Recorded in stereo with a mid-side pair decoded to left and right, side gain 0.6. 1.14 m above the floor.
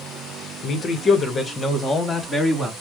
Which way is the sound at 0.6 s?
40° left.